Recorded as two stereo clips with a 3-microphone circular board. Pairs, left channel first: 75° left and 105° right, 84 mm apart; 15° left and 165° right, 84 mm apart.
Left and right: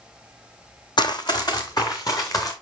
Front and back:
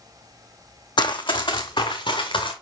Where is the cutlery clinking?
No cutlery clinking in this recording.